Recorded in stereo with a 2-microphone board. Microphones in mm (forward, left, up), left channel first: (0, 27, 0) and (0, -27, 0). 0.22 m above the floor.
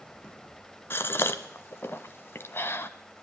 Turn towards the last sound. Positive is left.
turn(degrees=45)  # may be behind; listen again after turning